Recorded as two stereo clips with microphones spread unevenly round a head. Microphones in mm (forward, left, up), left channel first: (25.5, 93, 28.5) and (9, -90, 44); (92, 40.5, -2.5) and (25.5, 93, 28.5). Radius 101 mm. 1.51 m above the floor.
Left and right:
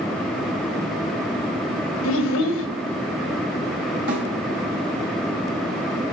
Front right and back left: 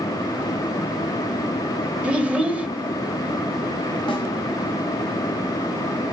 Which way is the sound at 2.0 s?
80° left.